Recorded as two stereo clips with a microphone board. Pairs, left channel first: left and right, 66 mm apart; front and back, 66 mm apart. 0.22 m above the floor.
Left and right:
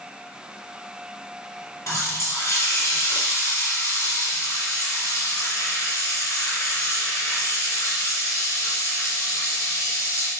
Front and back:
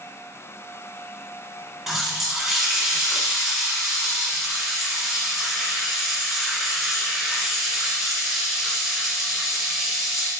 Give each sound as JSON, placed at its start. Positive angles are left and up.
{"t": 1.9, "sound": "a running tap", "azimuth_deg": 95, "distance_m": 1.1}